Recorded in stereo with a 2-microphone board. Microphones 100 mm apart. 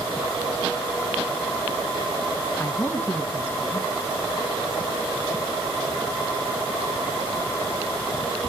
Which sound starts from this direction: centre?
A man speaking, at 2.6 s.